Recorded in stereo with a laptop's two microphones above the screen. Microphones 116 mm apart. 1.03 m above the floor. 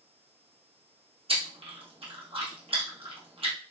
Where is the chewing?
55° right (ahead or behind), 0.9 m.